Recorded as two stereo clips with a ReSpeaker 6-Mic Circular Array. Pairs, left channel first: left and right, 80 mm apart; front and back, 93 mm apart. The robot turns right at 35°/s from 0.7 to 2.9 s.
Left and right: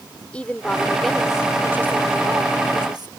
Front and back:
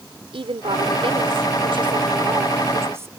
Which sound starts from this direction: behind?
A woman speaking, at 0.3 s.